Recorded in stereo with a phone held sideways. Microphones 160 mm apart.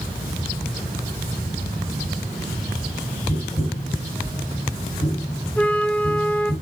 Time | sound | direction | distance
3.3 | tapping | 30° left (ahead or behind) | 2.5 m
5.6 | a flute | 10° left (ahead or behind) | 0.6 m